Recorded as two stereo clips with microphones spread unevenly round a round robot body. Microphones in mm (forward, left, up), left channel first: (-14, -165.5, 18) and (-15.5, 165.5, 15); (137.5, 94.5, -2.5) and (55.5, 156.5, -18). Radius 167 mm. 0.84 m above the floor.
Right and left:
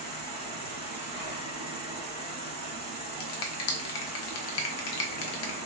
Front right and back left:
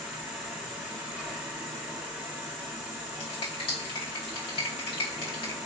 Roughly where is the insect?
Behind left.